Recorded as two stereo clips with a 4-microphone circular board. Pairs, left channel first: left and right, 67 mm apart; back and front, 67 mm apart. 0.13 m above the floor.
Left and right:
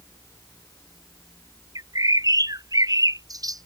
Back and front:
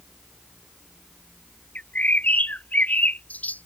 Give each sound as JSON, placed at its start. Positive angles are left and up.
{"t": 1.8, "sound": "a bird", "azimuth_deg": -115}